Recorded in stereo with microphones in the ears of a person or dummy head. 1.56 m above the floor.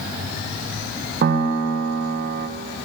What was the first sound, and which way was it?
A piano, 50° right (ahead or behind).